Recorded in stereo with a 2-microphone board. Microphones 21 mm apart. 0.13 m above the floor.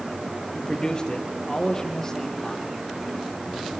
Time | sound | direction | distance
0.6 | a man speaking | 40° left (ahead or behind) | 2.5 m